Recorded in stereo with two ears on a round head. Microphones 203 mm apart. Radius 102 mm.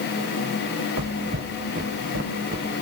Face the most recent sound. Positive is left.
turn(degrees=-40)  # may be behind; listen again after turning